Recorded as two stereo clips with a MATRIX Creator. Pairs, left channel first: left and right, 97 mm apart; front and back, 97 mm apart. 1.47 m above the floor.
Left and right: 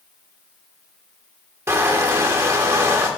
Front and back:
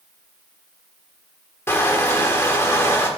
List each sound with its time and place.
1.7 s crushing: 50° right, 1.2 m